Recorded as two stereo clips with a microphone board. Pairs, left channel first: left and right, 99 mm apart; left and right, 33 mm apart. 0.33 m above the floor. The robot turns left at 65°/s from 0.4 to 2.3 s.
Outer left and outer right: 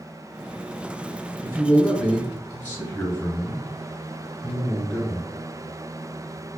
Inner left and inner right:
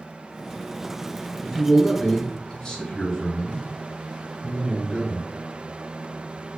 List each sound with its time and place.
1.4 s a man speaking: 155° right, 1.6 m; by 5.3 s 150° left, 1.6 m